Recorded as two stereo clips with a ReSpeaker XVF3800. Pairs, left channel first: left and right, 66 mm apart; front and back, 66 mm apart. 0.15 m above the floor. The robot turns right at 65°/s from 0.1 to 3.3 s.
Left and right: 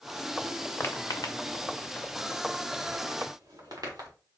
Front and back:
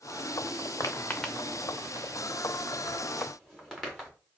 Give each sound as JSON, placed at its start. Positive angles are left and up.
{"t": 0.8, "sound": "footsteps", "azimuth_deg": 35, "distance_m": 1.0}